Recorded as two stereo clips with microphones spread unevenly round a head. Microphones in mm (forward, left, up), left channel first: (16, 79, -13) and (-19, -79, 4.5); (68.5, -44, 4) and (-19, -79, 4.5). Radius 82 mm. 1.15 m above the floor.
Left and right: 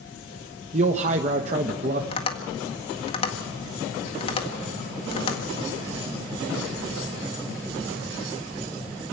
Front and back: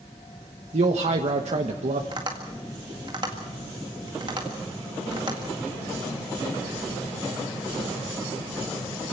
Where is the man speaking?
155° right, 1.2 m.